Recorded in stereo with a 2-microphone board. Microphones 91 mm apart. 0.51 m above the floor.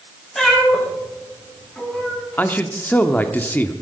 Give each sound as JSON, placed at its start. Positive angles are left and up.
{"t": 0.3, "sound": "a cat meowing", "side_deg": 5, "distance_m": 8.5}
{"t": 2.4, "sound": "a man speaking", "side_deg": 20, "distance_m": 0.8}